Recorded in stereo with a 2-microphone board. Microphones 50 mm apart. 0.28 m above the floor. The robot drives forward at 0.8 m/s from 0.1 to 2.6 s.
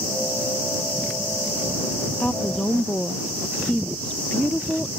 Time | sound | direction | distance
2.2 | a woman speaking | 30° left (ahead or behind) | ?